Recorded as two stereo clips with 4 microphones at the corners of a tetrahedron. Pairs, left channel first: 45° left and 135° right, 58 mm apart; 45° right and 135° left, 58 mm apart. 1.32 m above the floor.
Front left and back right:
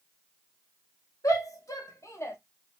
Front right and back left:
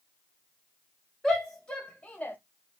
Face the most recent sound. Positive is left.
turn(degrees=10)